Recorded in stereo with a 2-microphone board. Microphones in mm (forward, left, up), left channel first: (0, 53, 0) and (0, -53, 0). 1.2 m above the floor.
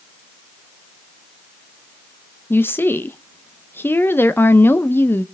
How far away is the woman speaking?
About 0.7 m.